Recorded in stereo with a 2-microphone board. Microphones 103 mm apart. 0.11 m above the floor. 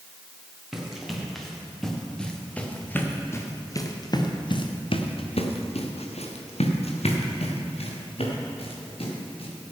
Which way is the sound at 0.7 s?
5° right (ahead or behind).